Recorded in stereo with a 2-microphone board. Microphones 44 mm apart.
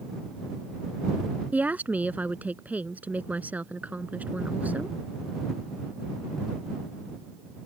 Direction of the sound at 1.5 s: 40° right (ahead or behind).